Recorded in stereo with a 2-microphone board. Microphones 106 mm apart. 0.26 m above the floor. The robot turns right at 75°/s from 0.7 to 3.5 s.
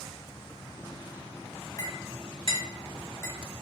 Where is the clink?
35° left (ahead or behind), 1.0 m; by 3.4 s 15° left (ahead or behind), 1.0 m.